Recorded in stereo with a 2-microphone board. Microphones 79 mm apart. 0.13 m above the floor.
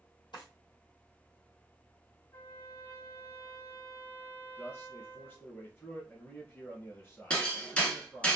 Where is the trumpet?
50° left (ahead or behind), 2 m.